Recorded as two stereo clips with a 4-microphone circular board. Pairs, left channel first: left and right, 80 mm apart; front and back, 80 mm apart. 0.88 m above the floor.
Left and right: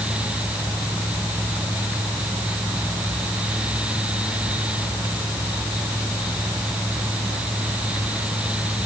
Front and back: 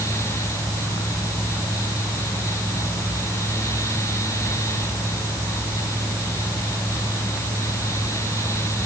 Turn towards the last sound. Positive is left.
No sound to turn to.